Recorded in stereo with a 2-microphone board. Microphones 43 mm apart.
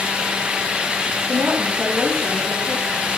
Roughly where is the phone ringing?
No phone ringing in this recording.